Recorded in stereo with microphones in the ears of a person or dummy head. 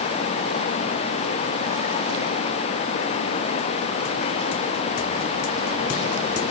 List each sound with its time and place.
Only background noise.